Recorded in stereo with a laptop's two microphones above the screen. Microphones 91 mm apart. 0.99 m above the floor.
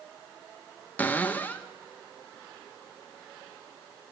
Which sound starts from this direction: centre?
A cupboard door, at 1.0 s.